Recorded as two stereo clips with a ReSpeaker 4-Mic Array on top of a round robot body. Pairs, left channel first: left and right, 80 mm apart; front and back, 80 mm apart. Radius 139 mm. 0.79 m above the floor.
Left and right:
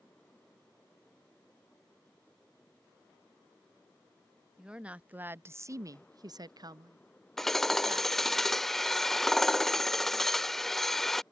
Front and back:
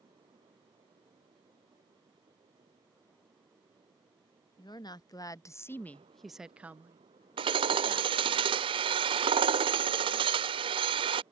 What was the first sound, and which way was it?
A woman speaking, 10° right.